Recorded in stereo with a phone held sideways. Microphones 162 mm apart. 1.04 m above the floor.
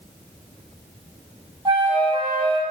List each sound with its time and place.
1.6 s a flute: 30° right (ahead or behind), 1.9 m